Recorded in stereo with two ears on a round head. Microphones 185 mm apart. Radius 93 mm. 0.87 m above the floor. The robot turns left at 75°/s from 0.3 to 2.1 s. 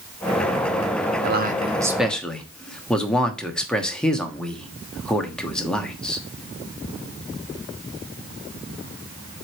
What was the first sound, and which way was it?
A man speaking, 55° right (ahead or behind).